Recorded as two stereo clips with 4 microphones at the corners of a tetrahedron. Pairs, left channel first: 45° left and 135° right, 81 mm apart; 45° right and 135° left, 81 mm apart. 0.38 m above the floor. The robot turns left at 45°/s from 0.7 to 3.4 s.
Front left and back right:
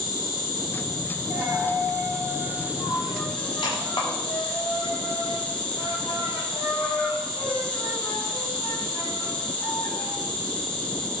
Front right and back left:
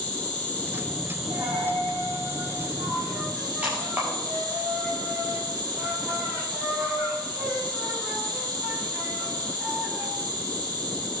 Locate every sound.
0.0 s an insect: 115° right, 7 m; by 11.2 s 125° left, 7 m
1.3 s a dropped coin: 160° left, 8.5 m; by 10.1 s 65° left, 8.5 m